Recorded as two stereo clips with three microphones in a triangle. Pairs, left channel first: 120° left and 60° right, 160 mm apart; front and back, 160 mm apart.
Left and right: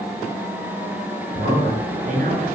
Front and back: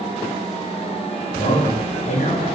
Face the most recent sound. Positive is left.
turn(degrees=-40)